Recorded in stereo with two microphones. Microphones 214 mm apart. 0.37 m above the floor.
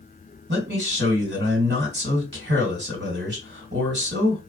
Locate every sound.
0.5 s a man speaking: 55° right (ahead or behind), 1.9 m